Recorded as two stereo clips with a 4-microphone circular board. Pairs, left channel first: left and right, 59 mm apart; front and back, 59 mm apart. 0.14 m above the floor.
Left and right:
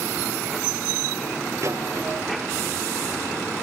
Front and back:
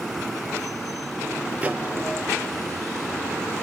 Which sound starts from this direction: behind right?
A microwave, at 1.6 s.